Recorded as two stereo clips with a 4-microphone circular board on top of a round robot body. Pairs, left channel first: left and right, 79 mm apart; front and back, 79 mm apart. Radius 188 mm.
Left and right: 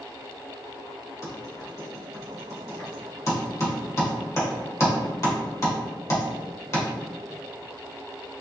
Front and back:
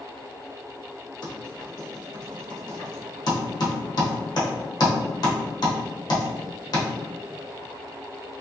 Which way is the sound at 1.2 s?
40° left.